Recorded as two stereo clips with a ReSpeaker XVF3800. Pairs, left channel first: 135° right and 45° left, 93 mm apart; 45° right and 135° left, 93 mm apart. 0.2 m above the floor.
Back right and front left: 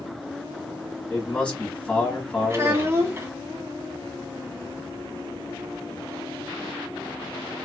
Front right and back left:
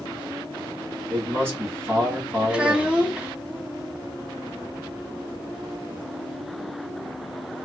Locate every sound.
1.1 s a man speaking: 160° left, 1.2 m
2.5 s a child speaking: 65° left, 0.9 m